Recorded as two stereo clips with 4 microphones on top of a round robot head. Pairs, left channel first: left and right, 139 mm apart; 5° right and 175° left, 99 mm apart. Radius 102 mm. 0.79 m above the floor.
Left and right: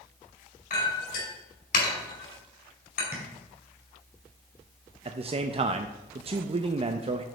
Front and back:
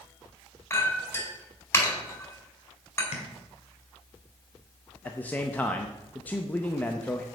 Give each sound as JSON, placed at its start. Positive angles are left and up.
{"t": 0.7, "sound": "a clink", "azimuth_deg": 60, "distance_m": 4.5}
{"t": 3.1, "sound": "tapping", "azimuth_deg": -15, "distance_m": 1.5}
{"t": 5.0, "sound": "a man speaking", "azimuth_deg": -75, "distance_m": 0.6}